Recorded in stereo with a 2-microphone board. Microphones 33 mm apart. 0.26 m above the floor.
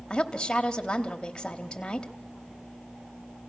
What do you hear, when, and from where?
0.1 s a woman speaking: 25° left (ahead or behind), 1.1 m